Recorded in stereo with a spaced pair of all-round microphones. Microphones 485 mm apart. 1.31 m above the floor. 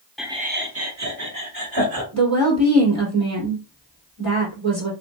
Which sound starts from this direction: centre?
Laughter, at 0.2 s.